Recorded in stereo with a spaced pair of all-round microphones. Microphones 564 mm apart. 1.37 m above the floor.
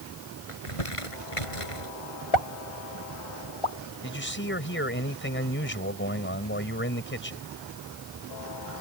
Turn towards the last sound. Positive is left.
turn(degrees=20)  # may be behind; listen again after turning